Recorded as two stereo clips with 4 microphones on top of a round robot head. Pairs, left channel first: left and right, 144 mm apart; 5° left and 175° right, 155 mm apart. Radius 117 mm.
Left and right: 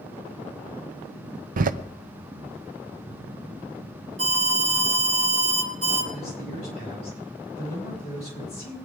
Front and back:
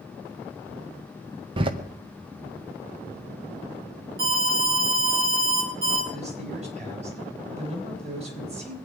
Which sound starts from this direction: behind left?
A man speaking, at 6.1 s.